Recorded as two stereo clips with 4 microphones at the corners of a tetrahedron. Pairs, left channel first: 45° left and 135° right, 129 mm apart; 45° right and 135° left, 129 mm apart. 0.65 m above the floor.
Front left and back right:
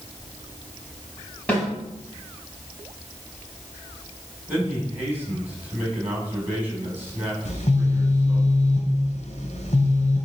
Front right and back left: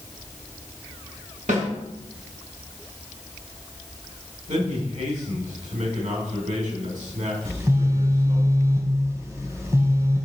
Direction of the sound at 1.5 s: 125° left.